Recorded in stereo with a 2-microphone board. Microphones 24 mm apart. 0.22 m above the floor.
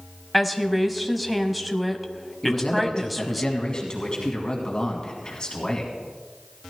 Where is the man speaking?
35° left (ahead or behind), 2 m.